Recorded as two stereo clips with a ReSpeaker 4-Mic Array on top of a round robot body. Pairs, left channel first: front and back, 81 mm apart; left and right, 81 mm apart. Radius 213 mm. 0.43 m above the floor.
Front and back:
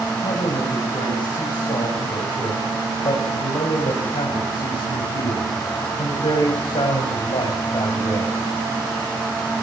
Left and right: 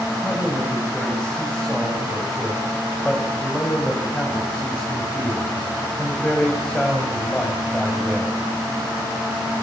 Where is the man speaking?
10° left, 5 m.